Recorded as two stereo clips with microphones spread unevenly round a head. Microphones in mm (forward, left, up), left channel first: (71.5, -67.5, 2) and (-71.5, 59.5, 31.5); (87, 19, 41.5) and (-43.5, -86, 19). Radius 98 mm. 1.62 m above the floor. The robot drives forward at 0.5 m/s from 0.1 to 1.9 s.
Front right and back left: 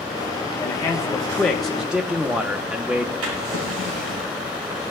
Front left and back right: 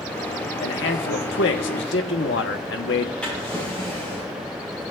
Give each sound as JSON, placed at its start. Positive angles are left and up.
{"t": 0.6, "sound": "a man speaking", "azimuth_deg": 35, "distance_m": 1.5}
{"t": 3.2, "sound": "a drawer", "azimuth_deg": 125, "distance_m": 8.5}